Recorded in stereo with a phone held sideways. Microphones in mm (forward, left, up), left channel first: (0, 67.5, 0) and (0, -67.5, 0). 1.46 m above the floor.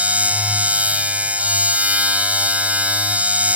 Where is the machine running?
10° right (ahead or behind).